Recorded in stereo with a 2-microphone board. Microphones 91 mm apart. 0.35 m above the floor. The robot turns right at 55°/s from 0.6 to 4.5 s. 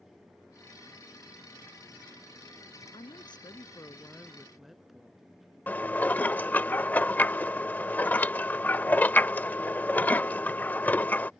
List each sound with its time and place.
2.9 s a woman speaking: 95° left; by 5.2 s straight behind
5.7 s dishes clattering: 20° left (ahead or behind)